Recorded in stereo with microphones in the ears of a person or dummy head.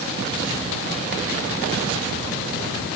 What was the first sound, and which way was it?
Only background noise.